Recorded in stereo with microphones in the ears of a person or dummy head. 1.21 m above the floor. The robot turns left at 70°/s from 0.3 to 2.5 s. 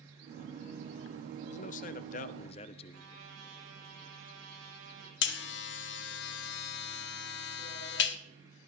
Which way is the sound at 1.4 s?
130° left.